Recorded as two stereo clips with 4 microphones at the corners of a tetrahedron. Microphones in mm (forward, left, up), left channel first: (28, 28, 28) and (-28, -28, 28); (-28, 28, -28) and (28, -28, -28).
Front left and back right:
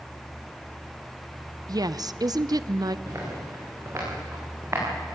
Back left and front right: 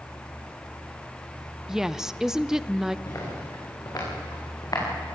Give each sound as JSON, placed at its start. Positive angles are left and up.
{"t": 1.7, "sound": "a woman speaking", "azimuth_deg": -125, "distance_m": 0.6}
{"t": 3.1, "sound": "footsteps", "azimuth_deg": 180, "distance_m": 8.5}